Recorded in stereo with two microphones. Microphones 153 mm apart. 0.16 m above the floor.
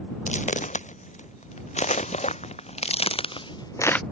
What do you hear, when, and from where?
0.3 s footsteps: 50° left (ahead or behind); by 4.0 s 5° left (ahead or behind)